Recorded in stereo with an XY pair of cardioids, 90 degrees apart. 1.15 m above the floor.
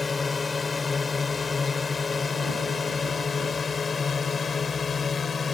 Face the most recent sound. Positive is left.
turn(degrees=50)